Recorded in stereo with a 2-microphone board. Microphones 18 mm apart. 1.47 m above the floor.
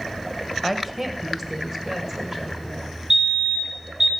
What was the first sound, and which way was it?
A woman speaking, 15° right (ahead or behind).